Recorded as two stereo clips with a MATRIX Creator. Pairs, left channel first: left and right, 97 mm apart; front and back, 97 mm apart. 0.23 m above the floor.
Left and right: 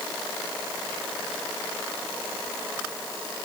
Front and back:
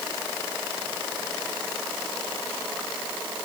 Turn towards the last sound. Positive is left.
No sound to turn to.